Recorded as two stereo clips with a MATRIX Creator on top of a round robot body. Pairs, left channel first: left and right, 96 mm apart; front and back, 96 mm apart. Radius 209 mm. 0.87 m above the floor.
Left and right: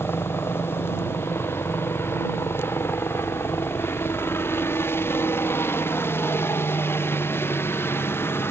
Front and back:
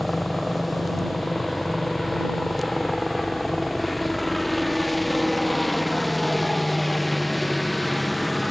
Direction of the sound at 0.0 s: 90° left.